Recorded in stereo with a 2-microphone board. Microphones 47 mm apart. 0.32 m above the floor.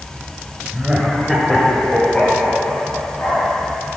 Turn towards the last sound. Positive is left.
turn(degrees=40)  # may be behind; listen again after turning